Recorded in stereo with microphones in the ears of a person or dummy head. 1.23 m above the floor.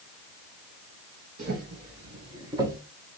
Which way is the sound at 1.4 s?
40° right (ahead or behind).